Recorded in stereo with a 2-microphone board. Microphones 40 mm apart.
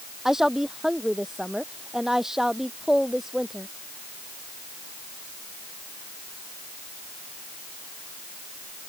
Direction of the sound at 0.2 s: 10° right (ahead or behind).